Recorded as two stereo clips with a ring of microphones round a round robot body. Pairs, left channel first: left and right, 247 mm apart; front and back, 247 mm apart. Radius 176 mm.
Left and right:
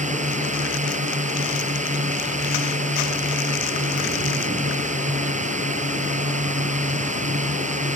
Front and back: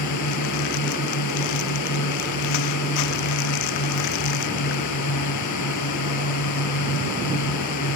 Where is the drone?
30° right.